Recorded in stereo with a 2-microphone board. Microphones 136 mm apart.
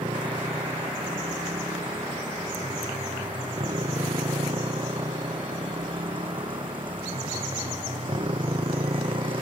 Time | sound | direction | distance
0.0 | a motorcycle | 35° right (ahead or behind) | ?